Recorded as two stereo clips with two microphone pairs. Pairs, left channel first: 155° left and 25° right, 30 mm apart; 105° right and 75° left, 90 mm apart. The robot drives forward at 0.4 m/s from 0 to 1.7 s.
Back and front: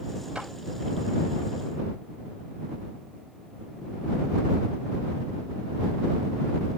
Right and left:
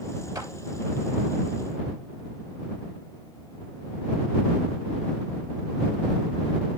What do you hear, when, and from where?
0.3 s a clap: 35° left, 2.5 m